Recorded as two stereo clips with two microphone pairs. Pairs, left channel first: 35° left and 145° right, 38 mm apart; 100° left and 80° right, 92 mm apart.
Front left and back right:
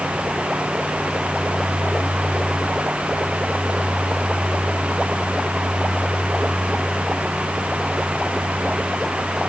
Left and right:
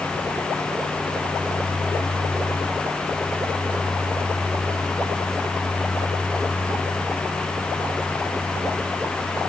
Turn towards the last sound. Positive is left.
No sound to turn to.